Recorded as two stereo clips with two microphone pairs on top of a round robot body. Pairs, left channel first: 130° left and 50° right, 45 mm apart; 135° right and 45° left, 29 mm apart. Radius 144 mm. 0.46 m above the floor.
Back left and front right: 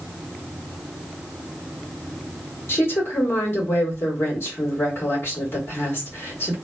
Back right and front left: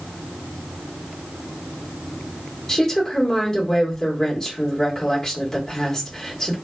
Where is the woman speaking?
160° left, 1.7 m.